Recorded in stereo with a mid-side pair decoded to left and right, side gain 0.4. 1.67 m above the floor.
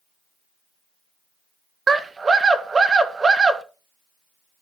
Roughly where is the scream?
Ahead right.